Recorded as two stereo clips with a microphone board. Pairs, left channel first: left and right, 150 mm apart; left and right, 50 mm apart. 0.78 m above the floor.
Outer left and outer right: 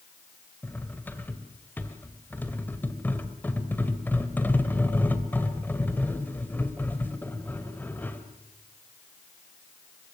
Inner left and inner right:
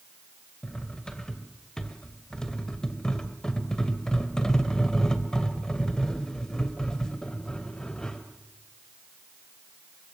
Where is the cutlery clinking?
15° left (ahead or behind), 2 m.